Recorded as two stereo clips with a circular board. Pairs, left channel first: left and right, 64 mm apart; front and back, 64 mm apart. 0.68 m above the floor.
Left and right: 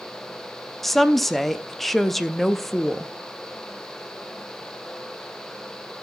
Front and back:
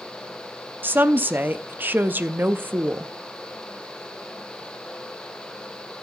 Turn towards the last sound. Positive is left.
turn(degrees=175)